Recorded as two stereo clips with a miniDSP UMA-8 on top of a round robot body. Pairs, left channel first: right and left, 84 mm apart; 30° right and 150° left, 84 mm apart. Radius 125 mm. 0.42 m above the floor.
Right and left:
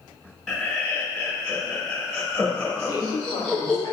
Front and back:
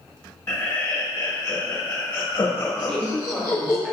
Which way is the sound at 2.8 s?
120° right.